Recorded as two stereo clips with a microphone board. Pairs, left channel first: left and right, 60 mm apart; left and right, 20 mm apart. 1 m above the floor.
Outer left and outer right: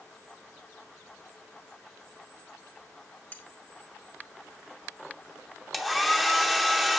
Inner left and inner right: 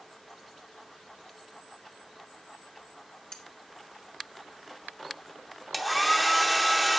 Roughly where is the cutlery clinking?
Left.